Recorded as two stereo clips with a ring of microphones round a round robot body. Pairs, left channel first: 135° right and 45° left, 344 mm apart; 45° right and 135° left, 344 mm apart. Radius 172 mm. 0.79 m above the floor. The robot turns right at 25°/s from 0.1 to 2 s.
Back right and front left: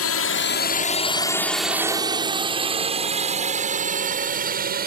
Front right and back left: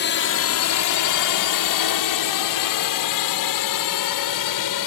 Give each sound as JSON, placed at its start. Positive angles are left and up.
{"t": 0.0, "sound": "a drone", "azimuth_deg": -95}